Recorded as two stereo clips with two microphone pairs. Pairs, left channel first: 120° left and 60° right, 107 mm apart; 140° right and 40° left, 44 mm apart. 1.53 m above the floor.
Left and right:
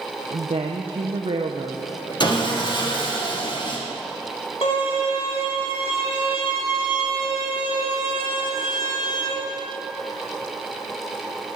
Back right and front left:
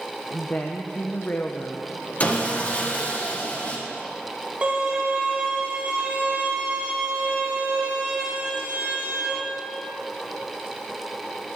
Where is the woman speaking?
90° right, 0.8 m.